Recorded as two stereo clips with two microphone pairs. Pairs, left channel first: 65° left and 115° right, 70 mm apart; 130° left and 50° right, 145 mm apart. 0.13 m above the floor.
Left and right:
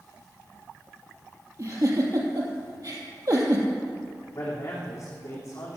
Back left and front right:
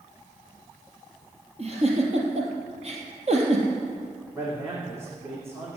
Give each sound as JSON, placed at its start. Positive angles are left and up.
{"t": 1.6, "sound": "a giggle", "azimuth_deg": -85, "distance_m": 3.0}
{"t": 4.3, "sound": "a man speaking", "azimuth_deg": 25, "distance_m": 7.0}